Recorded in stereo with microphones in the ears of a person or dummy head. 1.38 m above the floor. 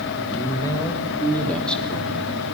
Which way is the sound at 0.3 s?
25° left (ahead or behind).